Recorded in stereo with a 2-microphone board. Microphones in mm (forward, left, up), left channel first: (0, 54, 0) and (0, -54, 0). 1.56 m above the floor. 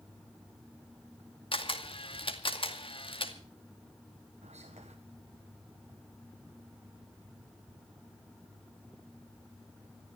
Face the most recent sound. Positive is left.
turn(degrees=-85)